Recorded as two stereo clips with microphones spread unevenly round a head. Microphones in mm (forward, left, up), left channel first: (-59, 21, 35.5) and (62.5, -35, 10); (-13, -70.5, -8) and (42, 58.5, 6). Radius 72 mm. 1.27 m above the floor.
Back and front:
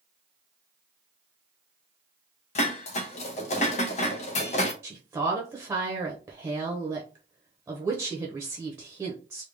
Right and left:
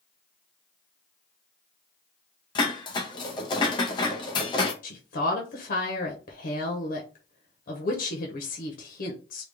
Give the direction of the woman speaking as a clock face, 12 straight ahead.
3 o'clock.